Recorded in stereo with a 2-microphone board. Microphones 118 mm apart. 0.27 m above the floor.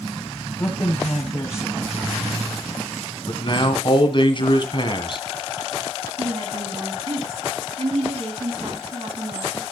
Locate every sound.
0.6 s a man speaking: 20° left (ahead or behind), 1.7 m
3.3 s a man speaking: 45° left (ahead or behind), 1.8 m
6.2 s a woman speaking: 55° right (ahead or behind), 3 m